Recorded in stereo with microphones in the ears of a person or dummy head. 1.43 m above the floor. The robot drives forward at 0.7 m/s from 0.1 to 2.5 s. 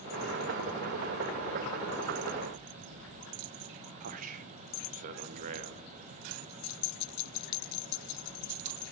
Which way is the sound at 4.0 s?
40° right (ahead or behind).